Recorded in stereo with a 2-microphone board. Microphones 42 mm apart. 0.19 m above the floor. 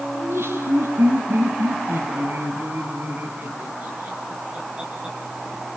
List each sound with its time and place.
0.1 s laughter: 75° right (ahead or behind), 6.5 m; by 5.2 s 20° right (ahead or behind), 5.5 m